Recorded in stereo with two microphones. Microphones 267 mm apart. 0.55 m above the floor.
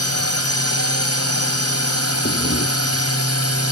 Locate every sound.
0.0 s a drone: 60° left (ahead or behind)
2.2 s breathing: 45° left (ahead or behind)